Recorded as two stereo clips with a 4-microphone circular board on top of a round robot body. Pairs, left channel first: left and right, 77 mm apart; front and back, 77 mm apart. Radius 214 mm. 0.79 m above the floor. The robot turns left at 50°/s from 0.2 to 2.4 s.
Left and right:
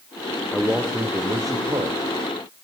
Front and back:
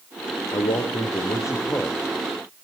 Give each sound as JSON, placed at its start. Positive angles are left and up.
{"t": 0.5, "sound": "a man speaking", "azimuth_deg": 0, "distance_m": 3.0}